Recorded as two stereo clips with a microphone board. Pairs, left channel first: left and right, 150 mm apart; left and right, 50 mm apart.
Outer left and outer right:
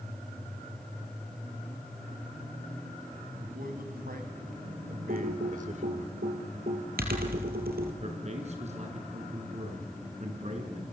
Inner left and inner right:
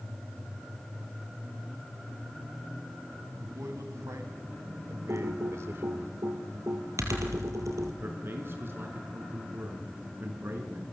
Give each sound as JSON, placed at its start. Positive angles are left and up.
{"t": 3.4, "sound": "a man speaking", "side_deg": -75, "distance_m": 3.0}
{"t": 5.1, "sound": "typing on a keyboard", "side_deg": -75, "distance_m": 3.5}
{"t": 8.0, "sound": "a man speaking", "side_deg": -45, "distance_m": 5.0}